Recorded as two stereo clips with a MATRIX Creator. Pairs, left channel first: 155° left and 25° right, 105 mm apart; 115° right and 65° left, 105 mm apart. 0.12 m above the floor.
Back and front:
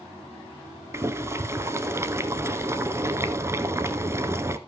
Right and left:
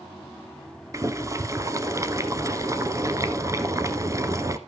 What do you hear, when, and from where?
0.9 s boiling: 25° left, 0.8 m